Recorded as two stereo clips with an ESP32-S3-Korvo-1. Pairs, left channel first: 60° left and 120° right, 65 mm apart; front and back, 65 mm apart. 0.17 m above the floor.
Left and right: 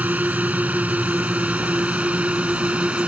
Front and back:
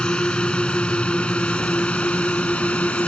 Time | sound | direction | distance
0.0 | a drone | 70° right | ?